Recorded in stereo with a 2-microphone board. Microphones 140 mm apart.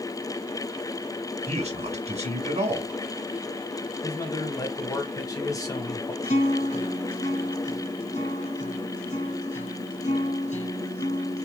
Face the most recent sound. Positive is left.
turn(degrees=55)  # may be behind; listen again after turning